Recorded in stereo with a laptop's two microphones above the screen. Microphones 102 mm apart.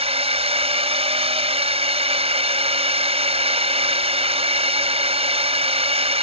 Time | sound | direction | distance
0.0 | a drone | 80° right | ?